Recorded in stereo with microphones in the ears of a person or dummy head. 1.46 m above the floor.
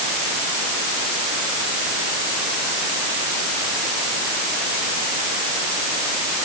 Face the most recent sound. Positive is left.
No sound to turn to.